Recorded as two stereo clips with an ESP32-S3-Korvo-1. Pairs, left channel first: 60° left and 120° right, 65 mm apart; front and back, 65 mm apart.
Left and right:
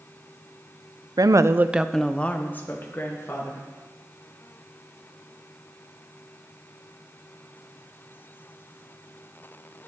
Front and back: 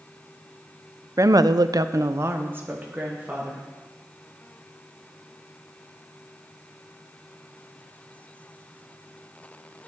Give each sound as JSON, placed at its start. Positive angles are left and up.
{"t": 1.2, "sound": "a woman speaking", "azimuth_deg": -140, "distance_m": 0.5}